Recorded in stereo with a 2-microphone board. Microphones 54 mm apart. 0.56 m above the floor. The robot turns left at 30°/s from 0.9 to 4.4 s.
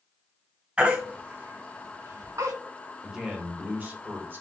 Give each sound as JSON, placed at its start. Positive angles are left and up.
{"t": 0.8, "sound": "a baby crying", "side_deg": -20, "distance_m": 2.0}
{"t": 3.0, "sound": "a man speaking", "azimuth_deg": -10, "distance_m": 1.8}